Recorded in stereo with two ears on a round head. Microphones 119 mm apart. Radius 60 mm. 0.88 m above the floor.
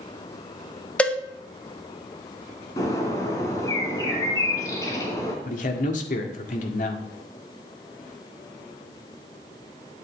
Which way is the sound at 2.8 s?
25° left (ahead or behind).